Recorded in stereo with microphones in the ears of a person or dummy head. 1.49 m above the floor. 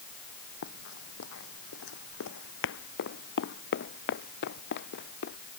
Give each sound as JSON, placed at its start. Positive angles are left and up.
{"t": 0.6, "sound": "running footsteps", "side_deg": 60}